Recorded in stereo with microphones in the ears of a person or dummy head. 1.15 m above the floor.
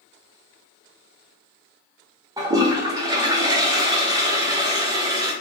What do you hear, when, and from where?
2.4 s a toilet flushing: 20° right (ahead or behind), 0.7 m